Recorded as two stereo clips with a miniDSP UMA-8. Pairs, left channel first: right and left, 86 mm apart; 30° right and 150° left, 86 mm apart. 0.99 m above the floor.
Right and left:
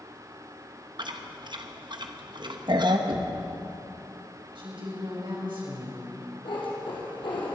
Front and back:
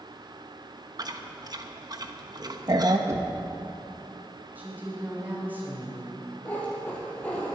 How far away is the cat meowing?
About 4 m.